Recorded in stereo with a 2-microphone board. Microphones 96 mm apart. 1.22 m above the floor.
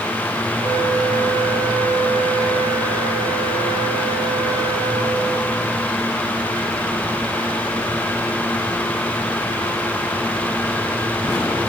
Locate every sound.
0.6 s a flute: 55° right (ahead or behind), 1.6 m